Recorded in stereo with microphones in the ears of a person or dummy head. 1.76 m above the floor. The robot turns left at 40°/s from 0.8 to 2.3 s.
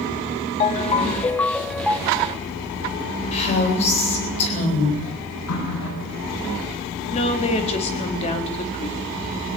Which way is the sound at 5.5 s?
85° left.